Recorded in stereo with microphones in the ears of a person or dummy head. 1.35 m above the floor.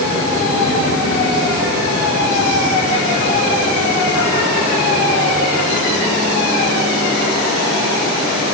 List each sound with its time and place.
Only background noise.